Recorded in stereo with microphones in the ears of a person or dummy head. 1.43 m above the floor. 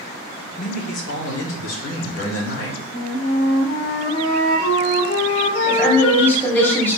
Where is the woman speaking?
5° left (ahead or behind), 1.1 m.